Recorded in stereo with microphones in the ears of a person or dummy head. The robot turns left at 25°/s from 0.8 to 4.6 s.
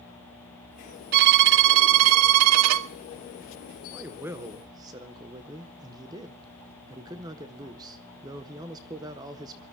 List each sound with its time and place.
1.1 s a violin: 55° right, 0.5 m; by 2.9 s 100° right, 0.5 m
3.9 s a man speaking: 5° right (ahead or behind), 0.8 m; by 9.6 s 20° right (ahead or behind), 0.8 m